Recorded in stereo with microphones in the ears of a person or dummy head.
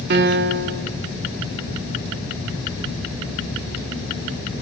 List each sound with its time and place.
0.1 s a piano: 60° right (ahead or behind), 0.9 m